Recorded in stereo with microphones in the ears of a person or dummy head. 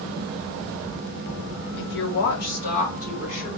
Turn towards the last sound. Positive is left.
turn(degrees=40)  # may be behind; listen again after turning